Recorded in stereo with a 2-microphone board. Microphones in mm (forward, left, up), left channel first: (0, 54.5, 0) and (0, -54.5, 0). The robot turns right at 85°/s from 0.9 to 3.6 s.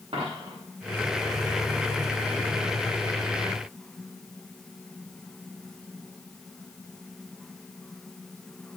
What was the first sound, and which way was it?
A dropped coin, 60° right (ahead or behind).